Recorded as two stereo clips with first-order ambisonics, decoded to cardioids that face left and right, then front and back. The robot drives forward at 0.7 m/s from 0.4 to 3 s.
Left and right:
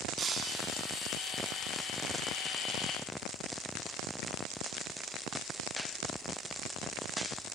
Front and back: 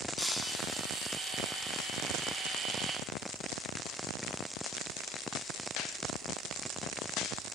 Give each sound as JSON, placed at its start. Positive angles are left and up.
{"t": 0.2, "sound": "breaking glass", "azimuth_deg": -70, "distance_m": 1.7}